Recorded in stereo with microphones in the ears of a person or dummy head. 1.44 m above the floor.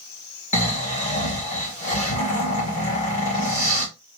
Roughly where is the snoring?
Left.